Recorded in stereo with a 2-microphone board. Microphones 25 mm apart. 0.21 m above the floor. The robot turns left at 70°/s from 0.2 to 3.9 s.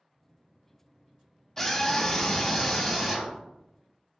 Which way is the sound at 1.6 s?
20° left (ahead or behind).